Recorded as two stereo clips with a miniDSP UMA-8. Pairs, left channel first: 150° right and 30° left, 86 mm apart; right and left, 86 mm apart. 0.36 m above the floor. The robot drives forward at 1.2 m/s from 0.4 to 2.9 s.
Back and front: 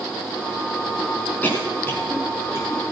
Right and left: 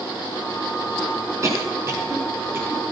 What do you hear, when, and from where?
1.4 s a cough: 140° left, 4.5 m; by 2.8 s 155° left, 6 m